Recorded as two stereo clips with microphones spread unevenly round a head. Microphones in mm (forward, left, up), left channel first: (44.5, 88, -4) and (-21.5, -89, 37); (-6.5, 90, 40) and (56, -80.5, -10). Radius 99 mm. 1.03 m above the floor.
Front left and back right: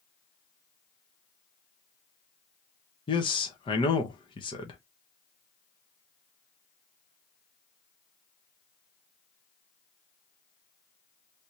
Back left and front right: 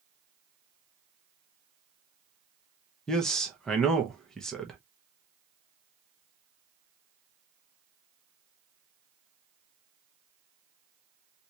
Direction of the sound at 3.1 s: 15° left.